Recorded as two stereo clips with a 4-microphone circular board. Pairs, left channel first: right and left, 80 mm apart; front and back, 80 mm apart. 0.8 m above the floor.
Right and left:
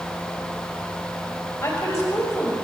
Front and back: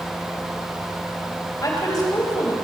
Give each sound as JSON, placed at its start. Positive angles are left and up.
{"t": 1.6, "sound": "a woman speaking", "azimuth_deg": -35, "distance_m": 4.0}